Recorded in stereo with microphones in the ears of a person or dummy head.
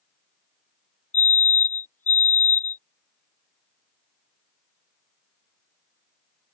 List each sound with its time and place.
1.1 s a fire alarm: 15° left (ahead or behind)